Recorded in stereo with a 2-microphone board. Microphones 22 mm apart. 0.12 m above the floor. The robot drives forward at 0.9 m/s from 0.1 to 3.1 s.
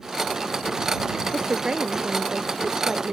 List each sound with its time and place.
1.3 s a woman speaking: 35° right (ahead or behind); by 3.1 s 30° right (ahead or behind)